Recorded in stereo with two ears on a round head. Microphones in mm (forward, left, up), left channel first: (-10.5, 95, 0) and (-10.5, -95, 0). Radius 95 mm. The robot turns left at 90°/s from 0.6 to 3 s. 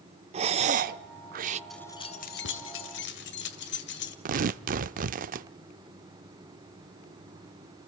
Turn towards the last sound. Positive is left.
turn(degrees=-40)  # may be behind; listen again after turning